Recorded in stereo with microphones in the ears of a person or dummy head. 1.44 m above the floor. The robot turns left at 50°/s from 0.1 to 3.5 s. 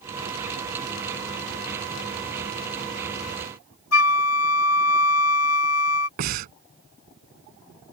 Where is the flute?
75° left (ahead or behind).